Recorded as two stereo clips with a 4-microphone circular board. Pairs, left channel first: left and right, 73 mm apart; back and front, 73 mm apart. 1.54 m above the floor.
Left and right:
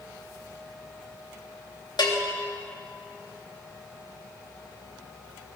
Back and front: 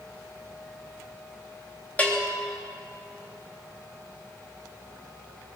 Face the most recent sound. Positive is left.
turn(degrees=110)